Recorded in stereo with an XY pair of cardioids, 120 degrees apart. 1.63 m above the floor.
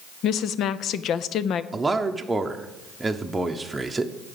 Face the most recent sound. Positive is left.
turn(degrees=-15)